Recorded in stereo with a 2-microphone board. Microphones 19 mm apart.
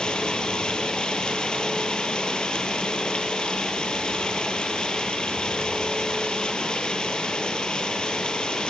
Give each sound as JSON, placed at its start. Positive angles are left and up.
{"t": 0.0, "sound": "running water", "side_deg": 55, "distance_m": 2.5}